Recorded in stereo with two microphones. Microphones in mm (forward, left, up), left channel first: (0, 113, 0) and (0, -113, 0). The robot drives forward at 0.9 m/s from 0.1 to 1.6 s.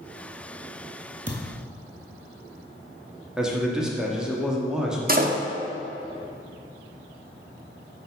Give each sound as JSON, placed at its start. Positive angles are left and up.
{"t": 1.3, "sound": "a thud", "side_deg": -40, "distance_m": 1.1}
{"t": 3.4, "sound": "a man speaking", "side_deg": -5, "distance_m": 1.0}
{"t": 5.1, "sound": "a door slam", "side_deg": -40, "distance_m": 0.6}